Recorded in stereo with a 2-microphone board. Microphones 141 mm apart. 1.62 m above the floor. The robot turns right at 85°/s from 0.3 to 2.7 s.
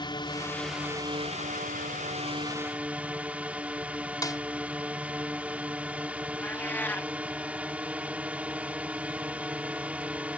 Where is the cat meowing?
15° left (ahead or behind).